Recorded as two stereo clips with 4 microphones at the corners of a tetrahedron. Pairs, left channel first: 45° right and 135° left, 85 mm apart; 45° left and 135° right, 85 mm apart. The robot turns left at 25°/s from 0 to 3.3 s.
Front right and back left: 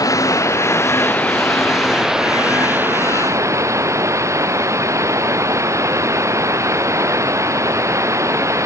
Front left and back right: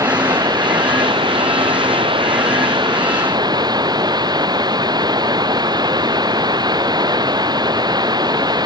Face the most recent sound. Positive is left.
turn(degrees=-170)